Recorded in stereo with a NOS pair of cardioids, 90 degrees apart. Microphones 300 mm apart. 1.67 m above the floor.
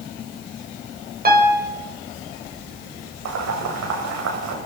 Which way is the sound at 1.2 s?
30° right.